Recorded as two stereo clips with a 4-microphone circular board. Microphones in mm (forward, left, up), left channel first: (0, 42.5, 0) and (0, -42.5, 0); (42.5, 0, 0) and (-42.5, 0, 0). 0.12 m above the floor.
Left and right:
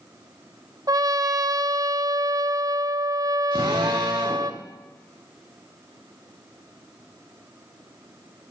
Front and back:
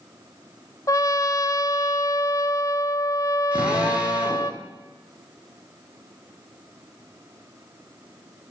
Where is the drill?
105° right, 6 m.